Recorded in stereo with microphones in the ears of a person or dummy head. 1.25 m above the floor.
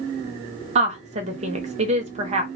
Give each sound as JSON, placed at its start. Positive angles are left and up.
{"t": 0.8, "sound": "a woman speaking", "side_deg": -35, "distance_m": 0.7}